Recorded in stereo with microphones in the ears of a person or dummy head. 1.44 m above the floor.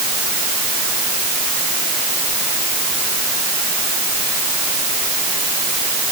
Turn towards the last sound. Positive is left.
No sound to turn to.